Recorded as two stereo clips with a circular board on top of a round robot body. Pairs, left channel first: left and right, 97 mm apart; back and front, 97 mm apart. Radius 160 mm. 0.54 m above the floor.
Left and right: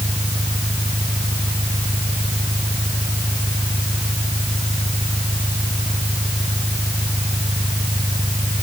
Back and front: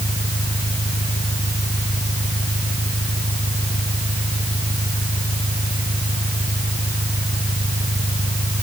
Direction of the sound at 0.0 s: 155° right.